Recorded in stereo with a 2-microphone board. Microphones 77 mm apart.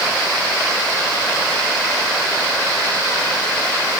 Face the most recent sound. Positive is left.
No sound to turn to.